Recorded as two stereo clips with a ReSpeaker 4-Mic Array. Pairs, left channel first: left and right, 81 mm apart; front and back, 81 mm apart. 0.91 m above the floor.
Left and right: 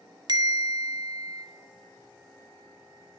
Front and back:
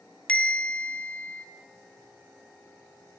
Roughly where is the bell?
Right.